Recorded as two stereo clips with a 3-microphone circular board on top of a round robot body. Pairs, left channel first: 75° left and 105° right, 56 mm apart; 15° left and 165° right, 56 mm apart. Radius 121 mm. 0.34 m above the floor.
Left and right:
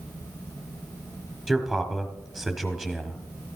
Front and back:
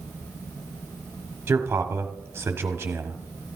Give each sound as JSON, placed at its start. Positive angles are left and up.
{"t": 1.5, "sound": "a man speaking", "azimuth_deg": 160, "distance_m": 1.4}